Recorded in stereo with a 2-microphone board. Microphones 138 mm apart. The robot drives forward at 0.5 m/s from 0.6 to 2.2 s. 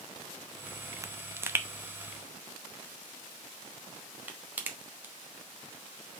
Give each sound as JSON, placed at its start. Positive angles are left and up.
{"t": 1.0, "sound": "a pop", "side_deg": -25, "distance_m": 0.6}